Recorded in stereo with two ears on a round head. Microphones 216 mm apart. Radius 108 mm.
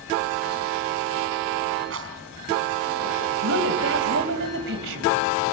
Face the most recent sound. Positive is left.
turn(degrees=-55)  # may be behind; listen again after turning